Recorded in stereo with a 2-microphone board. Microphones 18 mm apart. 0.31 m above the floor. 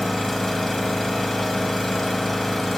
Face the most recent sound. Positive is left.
turn(degrees=20)  # may be behind; listen again after turning